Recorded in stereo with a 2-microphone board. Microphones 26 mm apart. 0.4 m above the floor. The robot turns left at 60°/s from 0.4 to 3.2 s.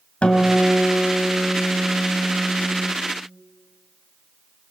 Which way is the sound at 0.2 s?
125° left.